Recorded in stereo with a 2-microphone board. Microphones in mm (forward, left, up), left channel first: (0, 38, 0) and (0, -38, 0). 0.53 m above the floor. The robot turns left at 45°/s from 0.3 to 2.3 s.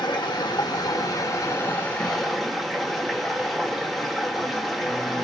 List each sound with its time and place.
0.0 s running water: 90° left, 0.7 m; by 5.2 s straight ahead, 0.7 m